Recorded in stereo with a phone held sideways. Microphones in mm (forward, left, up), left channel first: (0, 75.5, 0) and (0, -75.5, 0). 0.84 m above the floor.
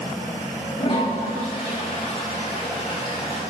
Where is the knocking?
No knocking in this recording.